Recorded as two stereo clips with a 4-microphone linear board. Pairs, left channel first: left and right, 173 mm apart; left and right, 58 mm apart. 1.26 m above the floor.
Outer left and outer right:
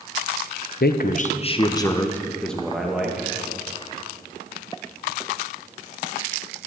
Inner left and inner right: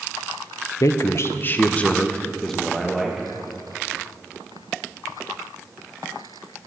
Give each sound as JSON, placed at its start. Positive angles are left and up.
{"t": 0.8, "sound": "a man speaking", "side_deg": 70, "distance_m": 0.6}